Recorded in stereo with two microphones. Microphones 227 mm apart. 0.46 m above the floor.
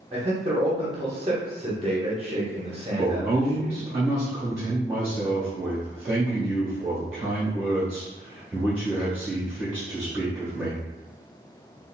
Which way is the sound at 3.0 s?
10° right (ahead or behind).